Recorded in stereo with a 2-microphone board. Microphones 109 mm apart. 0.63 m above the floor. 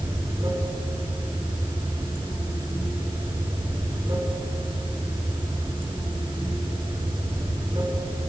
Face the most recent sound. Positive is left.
turn(degrees=-45)  # may be behind; listen again after turning